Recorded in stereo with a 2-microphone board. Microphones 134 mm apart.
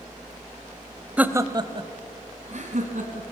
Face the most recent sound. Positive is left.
turn(degrees=-65)  # may be behind; listen again after turning